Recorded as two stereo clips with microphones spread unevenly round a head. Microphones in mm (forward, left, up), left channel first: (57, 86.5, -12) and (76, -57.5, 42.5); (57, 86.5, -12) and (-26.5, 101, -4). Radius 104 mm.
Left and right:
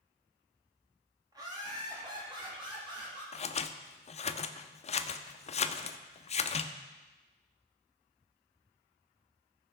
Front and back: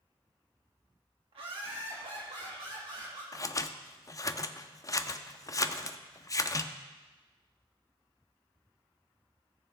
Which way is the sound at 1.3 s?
160° right.